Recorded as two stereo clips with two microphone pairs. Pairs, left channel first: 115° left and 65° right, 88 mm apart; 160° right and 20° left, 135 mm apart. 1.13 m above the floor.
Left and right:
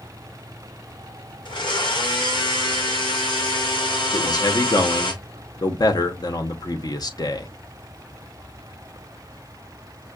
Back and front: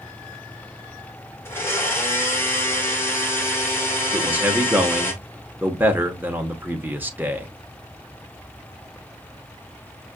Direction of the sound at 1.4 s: 130° left.